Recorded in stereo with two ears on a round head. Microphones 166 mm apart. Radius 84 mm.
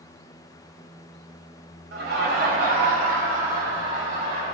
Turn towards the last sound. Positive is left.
turn(degrees=-50)  # may be behind; listen again after turning